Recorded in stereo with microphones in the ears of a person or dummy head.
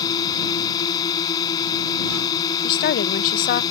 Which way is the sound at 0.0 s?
20° left (ahead or behind).